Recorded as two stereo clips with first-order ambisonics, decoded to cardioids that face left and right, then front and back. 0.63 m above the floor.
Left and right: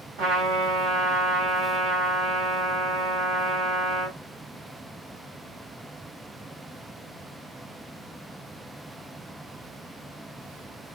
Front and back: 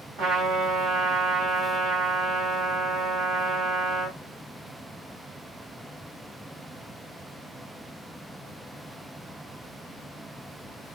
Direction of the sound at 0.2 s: 130° right.